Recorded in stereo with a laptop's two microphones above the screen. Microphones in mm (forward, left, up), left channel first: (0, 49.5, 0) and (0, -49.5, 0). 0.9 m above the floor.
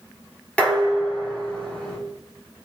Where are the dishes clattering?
10° left (ahead or behind), 1.3 m.